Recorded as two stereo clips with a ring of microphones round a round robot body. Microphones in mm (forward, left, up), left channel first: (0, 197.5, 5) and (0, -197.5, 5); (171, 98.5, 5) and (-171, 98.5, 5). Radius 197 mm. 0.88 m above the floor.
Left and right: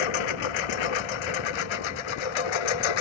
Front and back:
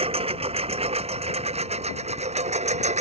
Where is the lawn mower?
105° left; by 3.0 s 110° left.